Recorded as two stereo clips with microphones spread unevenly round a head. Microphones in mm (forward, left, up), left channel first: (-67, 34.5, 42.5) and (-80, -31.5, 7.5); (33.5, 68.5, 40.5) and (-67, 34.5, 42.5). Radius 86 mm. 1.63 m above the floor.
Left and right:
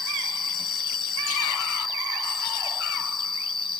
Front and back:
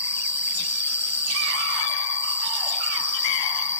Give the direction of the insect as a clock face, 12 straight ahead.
9 o'clock.